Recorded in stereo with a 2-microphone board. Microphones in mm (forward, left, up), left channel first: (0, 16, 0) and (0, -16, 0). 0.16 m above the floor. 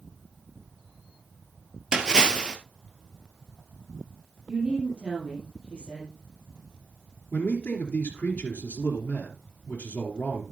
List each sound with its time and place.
1.9 s a splash: 25° right (ahead or behind), 1.5 m
4.5 s a woman speaking: 30° right (ahead or behind), 5 m
7.3 s a man speaking: 60° left (ahead or behind), 2.5 m